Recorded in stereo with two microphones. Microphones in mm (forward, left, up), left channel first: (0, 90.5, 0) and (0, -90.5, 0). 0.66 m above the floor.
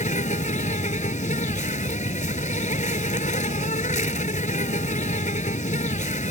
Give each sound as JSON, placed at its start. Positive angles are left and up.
{"t": 0.0, "sound": "an insect", "side_deg": 45}